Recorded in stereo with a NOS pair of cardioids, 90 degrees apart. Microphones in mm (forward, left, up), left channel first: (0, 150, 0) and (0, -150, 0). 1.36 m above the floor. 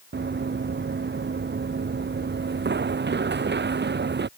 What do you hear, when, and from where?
0.1 s running footsteps: 35° right